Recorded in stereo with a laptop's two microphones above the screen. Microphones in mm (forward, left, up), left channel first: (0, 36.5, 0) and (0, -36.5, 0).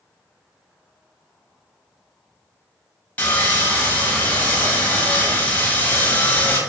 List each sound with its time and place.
3.2 s sawing: 20° left (ahead or behind), 0.6 m